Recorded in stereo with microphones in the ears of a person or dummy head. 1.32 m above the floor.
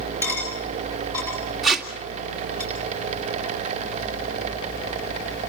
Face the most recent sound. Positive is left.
turn(degrees=0)  # may be behind; listen again after turning